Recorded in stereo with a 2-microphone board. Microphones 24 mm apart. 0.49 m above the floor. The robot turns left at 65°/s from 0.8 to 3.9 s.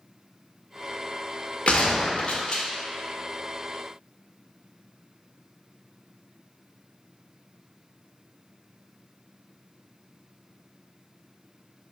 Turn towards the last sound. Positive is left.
turn(degrees=-35)